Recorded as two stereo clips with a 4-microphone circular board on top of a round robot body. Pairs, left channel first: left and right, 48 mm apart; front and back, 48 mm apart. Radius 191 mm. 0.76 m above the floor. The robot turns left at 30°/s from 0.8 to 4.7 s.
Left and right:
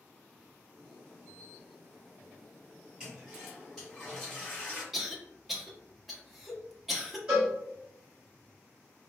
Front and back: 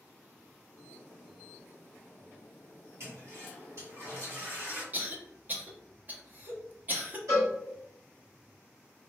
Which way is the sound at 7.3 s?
165° right.